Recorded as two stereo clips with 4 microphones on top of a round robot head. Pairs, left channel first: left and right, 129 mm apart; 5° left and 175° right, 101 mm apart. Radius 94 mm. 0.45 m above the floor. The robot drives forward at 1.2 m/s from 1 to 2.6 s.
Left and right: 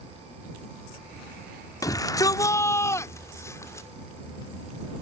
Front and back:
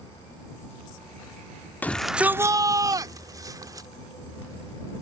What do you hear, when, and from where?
1.8 s a shout: 60° left; by 3.9 s 150° left